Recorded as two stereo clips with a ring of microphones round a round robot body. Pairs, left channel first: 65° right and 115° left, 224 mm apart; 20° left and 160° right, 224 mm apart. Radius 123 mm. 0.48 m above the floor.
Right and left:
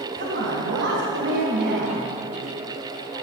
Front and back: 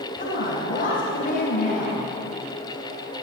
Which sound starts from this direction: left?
A woman speaking, at 0.2 s.